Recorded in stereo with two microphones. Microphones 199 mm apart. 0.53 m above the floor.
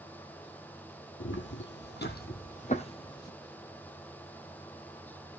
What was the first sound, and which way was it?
Footsteps, 75° left (ahead or behind).